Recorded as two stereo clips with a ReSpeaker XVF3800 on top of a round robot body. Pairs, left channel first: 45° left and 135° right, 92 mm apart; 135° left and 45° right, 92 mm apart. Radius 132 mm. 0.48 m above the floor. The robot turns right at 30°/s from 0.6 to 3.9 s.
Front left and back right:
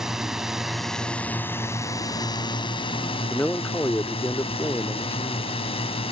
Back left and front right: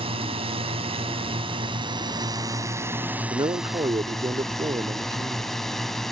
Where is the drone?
50° right; by 6.1 s 50° left.